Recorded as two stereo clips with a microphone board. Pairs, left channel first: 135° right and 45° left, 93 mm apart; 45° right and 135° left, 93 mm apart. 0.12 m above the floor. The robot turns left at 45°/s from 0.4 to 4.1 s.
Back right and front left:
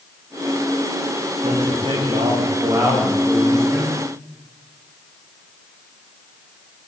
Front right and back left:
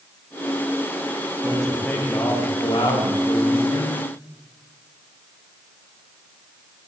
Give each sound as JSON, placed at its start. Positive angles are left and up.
{"t": 1.4, "sound": "a man speaking", "azimuth_deg": 50, "distance_m": 8.0}